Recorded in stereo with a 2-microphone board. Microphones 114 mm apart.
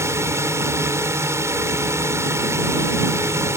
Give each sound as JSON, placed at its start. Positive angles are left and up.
{"t": 0.0, "sound": "a drone", "side_deg": -25}